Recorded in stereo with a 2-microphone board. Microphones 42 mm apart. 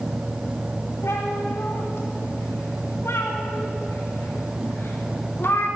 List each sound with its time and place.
1.0 s a cat meowing: 85° left, 5.5 m; by 5.7 s 55° left (ahead or behind), 5.5 m